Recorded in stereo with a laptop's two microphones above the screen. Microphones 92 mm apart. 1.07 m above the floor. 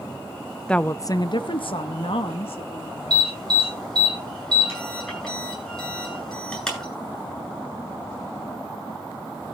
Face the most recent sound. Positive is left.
turn(degrees=5)  # may be behind; listen again after turning